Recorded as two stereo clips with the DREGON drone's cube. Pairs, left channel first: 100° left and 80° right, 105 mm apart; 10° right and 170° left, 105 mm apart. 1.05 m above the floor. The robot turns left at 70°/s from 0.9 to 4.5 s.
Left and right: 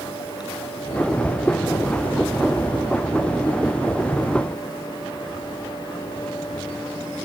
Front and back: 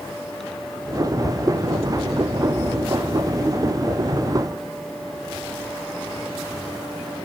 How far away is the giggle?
No giggle in this recording.